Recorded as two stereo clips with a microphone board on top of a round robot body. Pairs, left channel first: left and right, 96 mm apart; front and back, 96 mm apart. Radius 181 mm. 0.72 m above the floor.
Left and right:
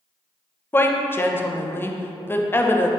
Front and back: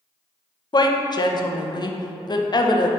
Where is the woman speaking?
25° left, 0.6 m.